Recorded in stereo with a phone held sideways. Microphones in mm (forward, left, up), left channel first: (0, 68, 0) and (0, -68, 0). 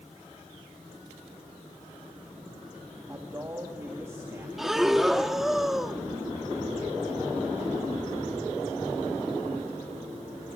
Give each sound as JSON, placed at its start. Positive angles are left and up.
{"t": 3.1, "sound": "a man speaking", "side_deg": -20, "distance_m": 2.5}
{"t": 4.6, "sound": "breathing", "side_deg": 0, "distance_m": 0.9}